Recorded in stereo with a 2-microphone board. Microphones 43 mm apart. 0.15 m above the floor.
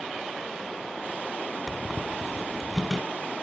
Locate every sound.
1.7 s a squeak: 15° right (ahead or behind), 1.7 m